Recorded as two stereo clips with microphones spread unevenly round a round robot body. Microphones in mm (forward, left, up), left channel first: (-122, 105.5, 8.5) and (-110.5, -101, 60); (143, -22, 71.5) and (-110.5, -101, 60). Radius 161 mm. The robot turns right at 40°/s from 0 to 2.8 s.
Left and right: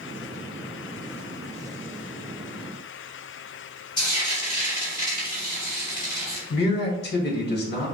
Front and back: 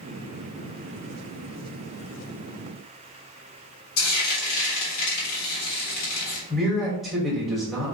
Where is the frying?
30° left, 2 m.